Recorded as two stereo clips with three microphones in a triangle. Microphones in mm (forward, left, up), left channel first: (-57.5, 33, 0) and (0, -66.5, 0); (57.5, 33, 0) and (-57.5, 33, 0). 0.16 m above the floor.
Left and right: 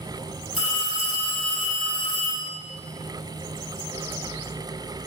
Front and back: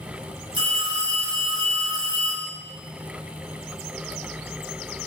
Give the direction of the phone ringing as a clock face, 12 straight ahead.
7 o'clock.